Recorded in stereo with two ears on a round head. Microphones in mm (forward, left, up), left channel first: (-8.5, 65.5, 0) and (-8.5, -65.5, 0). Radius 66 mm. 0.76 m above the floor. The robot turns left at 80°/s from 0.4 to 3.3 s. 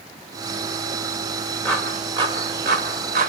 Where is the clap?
10° left (ahead or behind), 3 m; by 3.3 s 60° right (ahead or behind), 3 m.